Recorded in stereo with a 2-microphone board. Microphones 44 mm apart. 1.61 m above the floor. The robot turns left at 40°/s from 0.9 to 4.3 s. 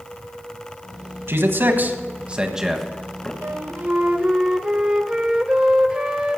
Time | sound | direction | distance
1.3 | a man speaking | 60° right (ahead or behind) | 1.4 m
3.4 | a flute | 125° right | 0.7 m